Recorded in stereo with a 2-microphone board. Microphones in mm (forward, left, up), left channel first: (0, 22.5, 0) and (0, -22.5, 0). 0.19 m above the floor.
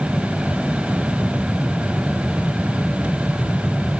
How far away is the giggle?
I don't hear a giggle.